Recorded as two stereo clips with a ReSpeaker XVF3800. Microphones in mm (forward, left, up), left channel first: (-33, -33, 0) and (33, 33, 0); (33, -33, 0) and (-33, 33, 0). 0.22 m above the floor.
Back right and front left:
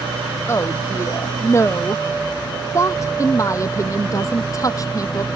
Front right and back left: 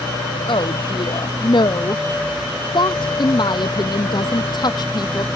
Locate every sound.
0.5 s a woman speaking: 75° right; by 5.3 s 85° right